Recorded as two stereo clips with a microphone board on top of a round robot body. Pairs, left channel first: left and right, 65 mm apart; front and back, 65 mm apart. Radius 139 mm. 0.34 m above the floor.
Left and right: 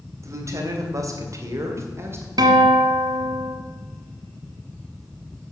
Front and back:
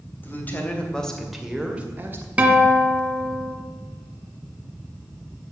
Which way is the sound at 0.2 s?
55° right.